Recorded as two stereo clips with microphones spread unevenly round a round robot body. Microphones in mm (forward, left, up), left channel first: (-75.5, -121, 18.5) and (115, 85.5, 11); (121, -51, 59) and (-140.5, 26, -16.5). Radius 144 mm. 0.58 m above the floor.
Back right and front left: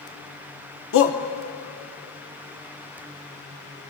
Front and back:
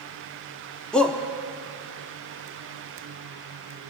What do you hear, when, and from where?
0.9 s a shout: 120° right, 0.9 m